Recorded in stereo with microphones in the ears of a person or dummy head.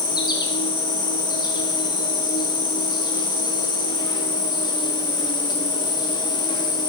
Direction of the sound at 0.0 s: 15° left (ahead or behind).